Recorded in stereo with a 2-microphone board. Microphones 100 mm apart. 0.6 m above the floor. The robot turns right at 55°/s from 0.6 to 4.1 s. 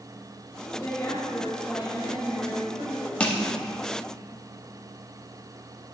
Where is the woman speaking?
140° left, 2.5 m; by 3.1 s 90° right, 2.5 m.